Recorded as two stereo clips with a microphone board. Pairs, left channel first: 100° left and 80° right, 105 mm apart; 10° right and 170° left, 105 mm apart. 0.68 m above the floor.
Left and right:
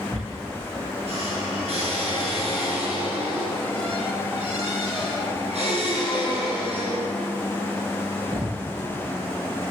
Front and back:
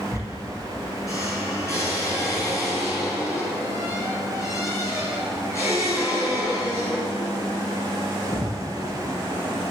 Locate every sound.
0.1 s a squeak: 70° right, 6 m